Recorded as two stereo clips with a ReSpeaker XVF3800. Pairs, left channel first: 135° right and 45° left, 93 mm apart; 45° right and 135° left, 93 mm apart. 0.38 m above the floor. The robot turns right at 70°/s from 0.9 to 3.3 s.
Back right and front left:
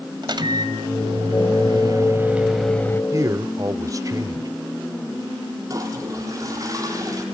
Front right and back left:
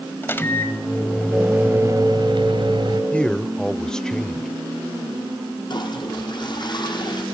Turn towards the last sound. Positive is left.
turn(degrees=-10)